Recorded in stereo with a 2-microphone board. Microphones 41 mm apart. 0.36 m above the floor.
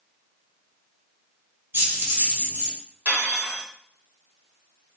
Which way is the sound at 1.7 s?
60° right (ahead or behind).